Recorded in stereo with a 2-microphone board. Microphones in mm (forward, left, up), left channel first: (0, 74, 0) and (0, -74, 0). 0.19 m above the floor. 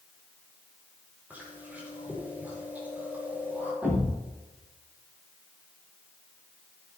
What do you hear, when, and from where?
1.3 s chewing: 10° right (ahead or behind), 7.5 m
3.8 s a thud: 10° right (ahead or behind), 6.5 m